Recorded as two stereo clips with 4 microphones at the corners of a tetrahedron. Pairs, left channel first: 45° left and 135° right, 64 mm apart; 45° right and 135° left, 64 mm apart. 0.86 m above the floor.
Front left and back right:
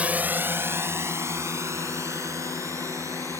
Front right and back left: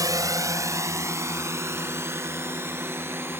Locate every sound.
0.0 s a drone: 155° left; by 3.4 s 175° right